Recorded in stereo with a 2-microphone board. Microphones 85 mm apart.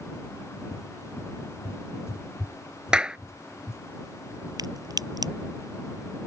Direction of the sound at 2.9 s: 10° right (ahead or behind).